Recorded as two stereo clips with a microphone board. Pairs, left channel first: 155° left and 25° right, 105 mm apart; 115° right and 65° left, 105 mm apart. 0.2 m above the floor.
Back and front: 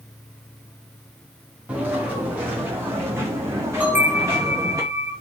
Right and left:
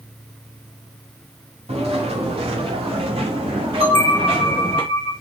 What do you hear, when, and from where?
1.7 s footsteps: 55° left, 6 m; by 4.8 s 35° left, 7 m
3.8 s a bell: 55° left, 2.5 m